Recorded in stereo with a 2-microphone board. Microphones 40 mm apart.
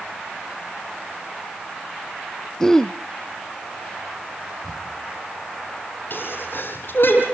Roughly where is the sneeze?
Left.